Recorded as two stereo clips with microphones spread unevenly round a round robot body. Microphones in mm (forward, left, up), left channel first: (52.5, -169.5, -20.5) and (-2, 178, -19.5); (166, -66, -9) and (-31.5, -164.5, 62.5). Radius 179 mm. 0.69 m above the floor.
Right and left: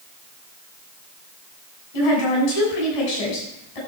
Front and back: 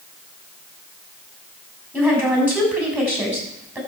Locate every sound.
1.9 s a woman speaking: 70° right, 6.5 m